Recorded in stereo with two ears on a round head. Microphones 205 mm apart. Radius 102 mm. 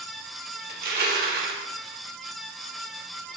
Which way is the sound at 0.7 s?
40° right (ahead or behind).